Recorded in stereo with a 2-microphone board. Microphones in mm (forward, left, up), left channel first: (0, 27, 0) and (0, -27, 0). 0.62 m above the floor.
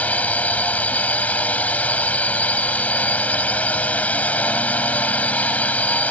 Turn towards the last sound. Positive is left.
turn(degrees=30)  # may be behind; listen again after turning